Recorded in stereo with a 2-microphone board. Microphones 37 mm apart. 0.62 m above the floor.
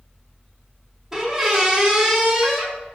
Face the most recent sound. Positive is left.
turn(degrees=-10)  # may be behind; listen again after turning